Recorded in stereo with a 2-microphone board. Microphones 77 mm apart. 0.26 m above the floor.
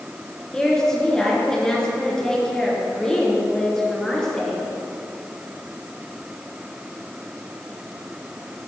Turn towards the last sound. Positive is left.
turn(degrees=5)  # may be behind; listen again after turning